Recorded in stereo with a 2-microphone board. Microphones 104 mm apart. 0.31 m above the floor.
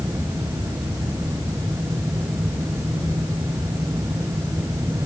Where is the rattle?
No rattle in this recording.